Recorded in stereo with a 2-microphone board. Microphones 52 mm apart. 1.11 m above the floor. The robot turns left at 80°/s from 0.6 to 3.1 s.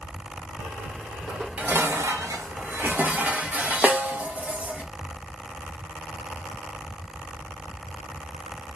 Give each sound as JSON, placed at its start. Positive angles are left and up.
{"t": 1.3, "sound": "dishes clattering", "azimuth_deg": -5, "distance_m": 0.6}
{"t": 3.8, "sound": "a snare drum", "side_deg": -30, "distance_m": 0.6}